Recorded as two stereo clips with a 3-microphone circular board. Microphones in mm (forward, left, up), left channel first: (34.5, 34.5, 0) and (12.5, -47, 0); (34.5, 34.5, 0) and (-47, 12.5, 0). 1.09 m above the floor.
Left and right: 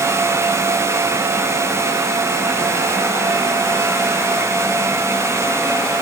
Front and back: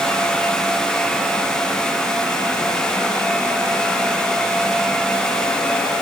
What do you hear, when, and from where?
Only background noise.